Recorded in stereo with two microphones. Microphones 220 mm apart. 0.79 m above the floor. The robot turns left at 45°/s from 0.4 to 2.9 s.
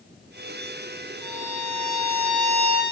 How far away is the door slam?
No door slam in this recording.